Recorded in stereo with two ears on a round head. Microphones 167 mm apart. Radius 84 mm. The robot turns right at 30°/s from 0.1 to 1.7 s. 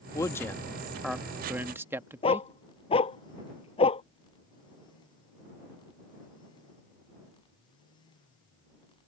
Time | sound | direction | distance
0.1 | a man speaking | 15° left (ahead or behind) | ?
2.2 | a dog barking | 30° left (ahead or behind) | ?